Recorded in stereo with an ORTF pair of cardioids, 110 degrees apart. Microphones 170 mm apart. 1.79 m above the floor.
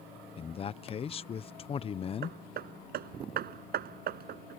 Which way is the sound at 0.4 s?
35° left.